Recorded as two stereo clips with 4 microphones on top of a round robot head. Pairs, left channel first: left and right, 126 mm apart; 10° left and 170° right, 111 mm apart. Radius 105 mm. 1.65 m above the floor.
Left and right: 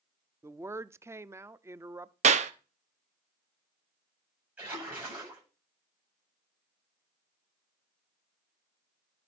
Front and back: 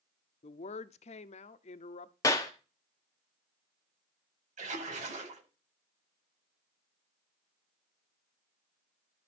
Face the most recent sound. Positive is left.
turn(degrees=-170)